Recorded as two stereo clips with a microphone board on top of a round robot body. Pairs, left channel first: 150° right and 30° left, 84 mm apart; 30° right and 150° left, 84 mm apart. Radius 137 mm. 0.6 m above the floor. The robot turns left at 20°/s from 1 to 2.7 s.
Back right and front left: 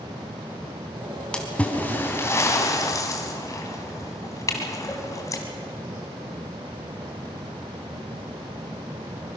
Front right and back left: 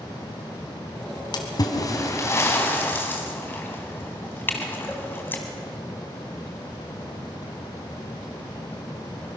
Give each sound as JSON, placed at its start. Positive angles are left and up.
{"t": 1.3, "sound": "a splash", "azimuth_deg": -70, "distance_m": 1.9}